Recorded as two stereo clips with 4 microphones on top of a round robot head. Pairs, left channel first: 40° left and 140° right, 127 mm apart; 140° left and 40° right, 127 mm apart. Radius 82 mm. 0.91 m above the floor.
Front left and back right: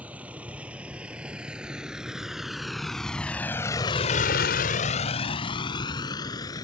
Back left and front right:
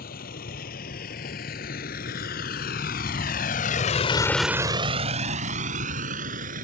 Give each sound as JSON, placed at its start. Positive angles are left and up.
{"t": 0.0, "sound": "a vehicle", "azimuth_deg": 140}